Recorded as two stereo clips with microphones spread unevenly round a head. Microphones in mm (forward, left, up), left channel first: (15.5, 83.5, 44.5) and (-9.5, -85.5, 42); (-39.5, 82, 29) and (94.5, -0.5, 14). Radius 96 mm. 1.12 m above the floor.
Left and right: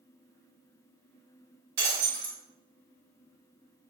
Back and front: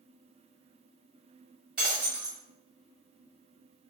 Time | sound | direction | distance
1.8 | breaking glass | 120° right | 1.8 m